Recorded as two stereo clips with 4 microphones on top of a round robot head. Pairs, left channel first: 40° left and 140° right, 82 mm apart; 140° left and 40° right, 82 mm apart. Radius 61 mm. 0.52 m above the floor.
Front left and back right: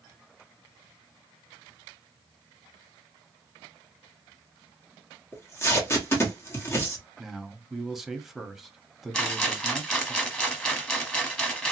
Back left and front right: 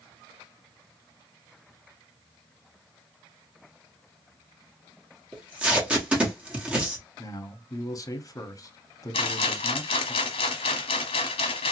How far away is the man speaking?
About 0.9 m.